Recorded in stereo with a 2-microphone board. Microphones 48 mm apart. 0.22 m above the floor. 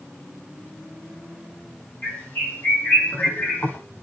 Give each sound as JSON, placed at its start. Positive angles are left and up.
{"t": 2.0, "sound": "a bird", "side_deg": 40, "distance_m": 7.0}